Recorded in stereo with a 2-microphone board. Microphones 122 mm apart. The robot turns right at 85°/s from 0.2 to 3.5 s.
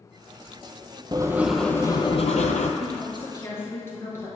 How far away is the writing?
About 0.6 m.